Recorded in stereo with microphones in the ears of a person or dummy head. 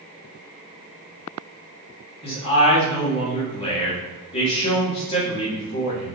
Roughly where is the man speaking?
Left.